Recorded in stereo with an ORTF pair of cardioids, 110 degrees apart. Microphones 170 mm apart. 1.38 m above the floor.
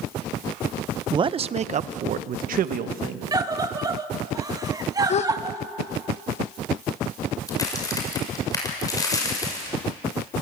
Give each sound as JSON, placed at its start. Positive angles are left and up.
{"t": 1.1, "sound": "a man speaking", "azimuth_deg": -25, "distance_m": 0.6}
{"t": 3.3, "sound": "a scream", "azimuth_deg": -20, "distance_m": 2.0}
{"t": 5.1, "sound": "a gasp", "azimuth_deg": 40, "distance_m": 1.1}
{"t": 7.5, "sound": "a crack", "azimuth_deg": 20, "distance_m": 7.0}